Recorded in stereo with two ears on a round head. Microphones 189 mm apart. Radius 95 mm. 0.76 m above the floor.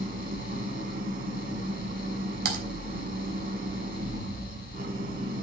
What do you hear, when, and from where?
0.0 s an engine running: 45° right (ahead or behind), 7 m
2.5 s typing on a keyboard: 50° right (ahead or behind), 3.5 m